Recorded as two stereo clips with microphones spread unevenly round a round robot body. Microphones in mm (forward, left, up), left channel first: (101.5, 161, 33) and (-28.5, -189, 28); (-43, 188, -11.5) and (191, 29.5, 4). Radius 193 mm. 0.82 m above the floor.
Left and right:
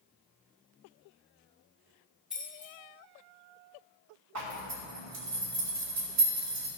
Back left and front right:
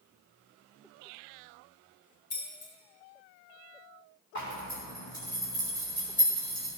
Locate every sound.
2.3 s keys jangling: 160° left, 3.5 m
4.3 s a zipper: 155° right, 3 m